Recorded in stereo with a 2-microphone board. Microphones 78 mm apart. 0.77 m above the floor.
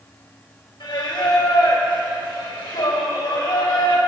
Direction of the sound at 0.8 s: 85° left.